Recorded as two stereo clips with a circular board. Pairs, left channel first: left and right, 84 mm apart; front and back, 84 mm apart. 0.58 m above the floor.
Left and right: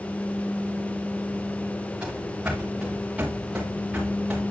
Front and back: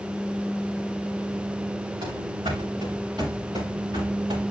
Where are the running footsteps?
170° right, 3 m; by 4.4 s 165° right, 4.5 m.